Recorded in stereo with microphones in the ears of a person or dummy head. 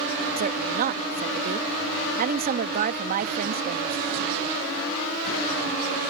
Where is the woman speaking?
45° right (ahead or behind).